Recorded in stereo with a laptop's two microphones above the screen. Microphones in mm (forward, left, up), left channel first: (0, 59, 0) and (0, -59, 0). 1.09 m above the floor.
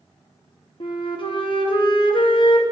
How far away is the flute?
About 0.8 m.